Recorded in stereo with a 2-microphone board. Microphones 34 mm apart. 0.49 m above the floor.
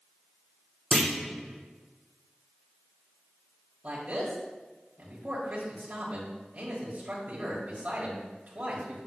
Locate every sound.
0.9 s a clunk: 15° left (ahead or behind), 2 m
3.8 s a man speaking: 45° right (ahead or behind), 1.7 m